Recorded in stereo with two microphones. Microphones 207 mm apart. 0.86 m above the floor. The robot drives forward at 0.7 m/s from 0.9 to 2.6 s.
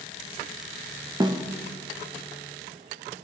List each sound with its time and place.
1.2 s a snare drum: 20° right (ahead or behind), 0.5 m